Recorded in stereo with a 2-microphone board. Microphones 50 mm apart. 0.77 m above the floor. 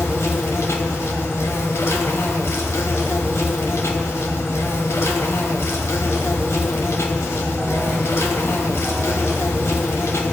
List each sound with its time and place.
0.0 s an insect: 70° left (ahead or behind), 1.5 m